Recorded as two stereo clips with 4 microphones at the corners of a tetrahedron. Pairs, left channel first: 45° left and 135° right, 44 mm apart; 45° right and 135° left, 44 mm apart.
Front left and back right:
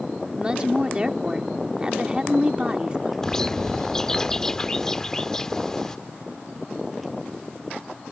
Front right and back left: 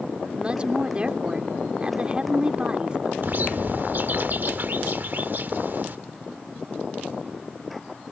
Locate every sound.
0.4 s a woman speaking: 175° left
3.2 s a bird: 115° left